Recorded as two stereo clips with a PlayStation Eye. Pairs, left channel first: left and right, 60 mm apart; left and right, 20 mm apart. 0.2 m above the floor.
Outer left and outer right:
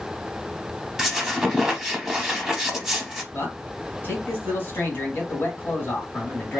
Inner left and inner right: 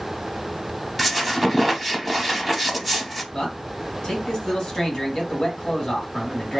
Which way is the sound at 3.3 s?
35° left (ahead or behind).